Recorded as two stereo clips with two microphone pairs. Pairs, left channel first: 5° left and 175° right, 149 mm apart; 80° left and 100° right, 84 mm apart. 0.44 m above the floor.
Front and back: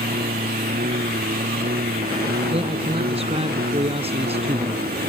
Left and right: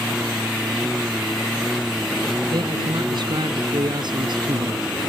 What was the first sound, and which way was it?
A lawn mower, 175° left.